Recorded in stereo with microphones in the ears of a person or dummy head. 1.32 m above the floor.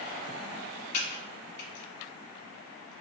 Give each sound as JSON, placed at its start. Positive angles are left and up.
{"t": 0.9, "sound": "typing on a keyboard", "side_deg": 45, "distance_m": 1.1}